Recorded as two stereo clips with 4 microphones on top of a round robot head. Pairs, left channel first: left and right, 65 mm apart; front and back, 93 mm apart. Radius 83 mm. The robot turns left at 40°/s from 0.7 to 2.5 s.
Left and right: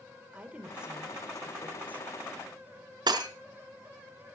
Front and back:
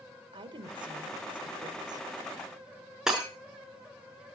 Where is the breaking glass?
95° right, 4 m.